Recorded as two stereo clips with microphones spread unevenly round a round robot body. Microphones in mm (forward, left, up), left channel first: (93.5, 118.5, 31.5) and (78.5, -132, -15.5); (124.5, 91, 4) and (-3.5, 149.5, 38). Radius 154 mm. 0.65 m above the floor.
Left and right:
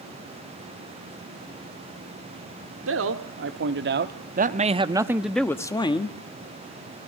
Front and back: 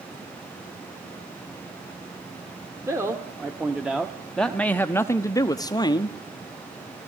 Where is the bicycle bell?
I don't hear a bicycle bell.